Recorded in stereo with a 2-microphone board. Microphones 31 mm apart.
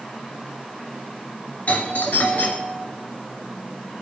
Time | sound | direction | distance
1.7 | a doorbell | 45° left (ahead or behind) | 2.5 m